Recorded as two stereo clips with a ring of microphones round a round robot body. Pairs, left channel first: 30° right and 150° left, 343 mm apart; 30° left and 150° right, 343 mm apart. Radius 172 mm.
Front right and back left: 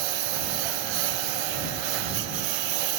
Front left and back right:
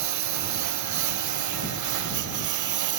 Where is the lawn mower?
165° left; by 3.0 s 170° left.